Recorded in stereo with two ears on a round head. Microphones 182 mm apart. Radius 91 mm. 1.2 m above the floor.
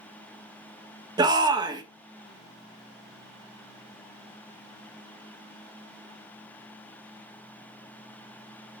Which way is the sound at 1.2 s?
20° right (ahead or behind).